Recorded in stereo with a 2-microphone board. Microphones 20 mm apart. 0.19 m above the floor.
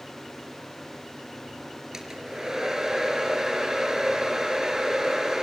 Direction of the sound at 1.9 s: 35° right (ahead or behind).